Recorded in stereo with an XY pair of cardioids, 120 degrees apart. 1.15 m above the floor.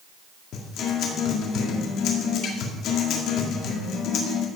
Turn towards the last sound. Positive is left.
turn(degrees=70)